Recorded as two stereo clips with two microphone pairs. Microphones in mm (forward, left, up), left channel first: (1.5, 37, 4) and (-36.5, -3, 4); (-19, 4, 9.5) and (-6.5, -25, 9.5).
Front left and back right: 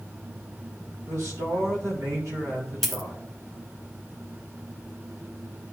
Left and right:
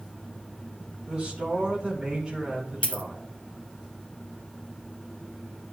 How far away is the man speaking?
About 3.5 m.